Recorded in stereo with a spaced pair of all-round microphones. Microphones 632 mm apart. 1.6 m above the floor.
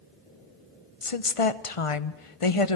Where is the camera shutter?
I don't hear a camera shutter.